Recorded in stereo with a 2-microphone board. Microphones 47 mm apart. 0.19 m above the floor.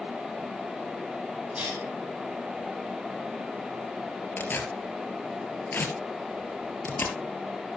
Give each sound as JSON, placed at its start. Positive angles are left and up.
{"t": 1.6, "sound": "a cough", "side_deg": -30, "distance_m": 6.5}
{"t": 4.4, "sound": "tearing paper", "side_deg": 45, "distance_m": 3.0}